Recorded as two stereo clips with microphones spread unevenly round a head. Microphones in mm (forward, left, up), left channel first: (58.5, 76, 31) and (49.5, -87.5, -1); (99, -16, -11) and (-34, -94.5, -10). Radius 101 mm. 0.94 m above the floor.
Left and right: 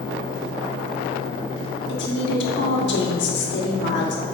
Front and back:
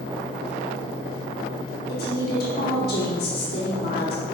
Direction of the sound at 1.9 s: 75° left.